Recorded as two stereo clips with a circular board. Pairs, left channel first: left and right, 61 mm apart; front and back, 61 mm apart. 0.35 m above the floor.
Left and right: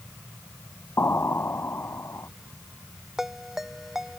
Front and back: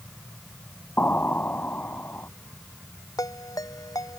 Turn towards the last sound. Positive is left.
turn(degrees=-5)